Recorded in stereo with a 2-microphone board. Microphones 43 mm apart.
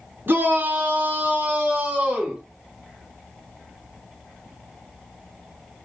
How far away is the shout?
About 3.5 m.